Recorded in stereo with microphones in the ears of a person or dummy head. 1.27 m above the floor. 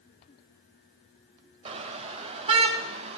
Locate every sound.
1.6 s a car horn: 35° right (ahead or behind), 2.5 m